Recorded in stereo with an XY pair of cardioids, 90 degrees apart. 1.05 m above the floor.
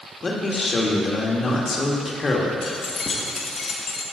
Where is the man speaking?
40° left, 1.7 m.